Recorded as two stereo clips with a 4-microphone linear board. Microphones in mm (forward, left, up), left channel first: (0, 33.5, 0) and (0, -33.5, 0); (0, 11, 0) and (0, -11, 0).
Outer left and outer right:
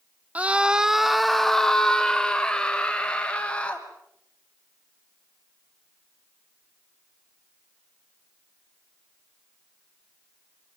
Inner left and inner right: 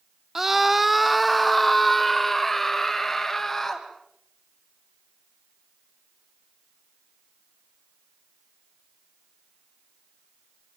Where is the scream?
20° right (ahead or behind), 0.8 m; by 3.9 s 15° left (ahead or behind), 3 m.